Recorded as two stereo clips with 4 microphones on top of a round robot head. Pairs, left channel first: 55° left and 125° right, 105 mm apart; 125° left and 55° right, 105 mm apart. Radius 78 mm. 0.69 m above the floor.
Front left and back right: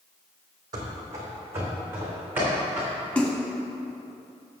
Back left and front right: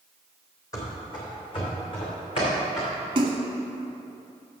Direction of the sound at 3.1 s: 20° right.